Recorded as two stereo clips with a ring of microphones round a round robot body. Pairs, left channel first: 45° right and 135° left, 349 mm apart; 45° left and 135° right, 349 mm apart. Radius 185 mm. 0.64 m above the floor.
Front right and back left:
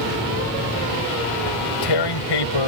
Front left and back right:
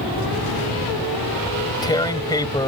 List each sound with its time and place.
1.5 s tearing paper: 35° right